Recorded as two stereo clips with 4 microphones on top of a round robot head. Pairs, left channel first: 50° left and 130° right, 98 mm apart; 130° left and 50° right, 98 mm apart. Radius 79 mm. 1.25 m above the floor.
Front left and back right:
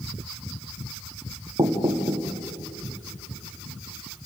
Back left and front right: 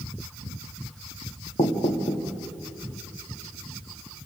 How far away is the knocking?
About 1.3 m.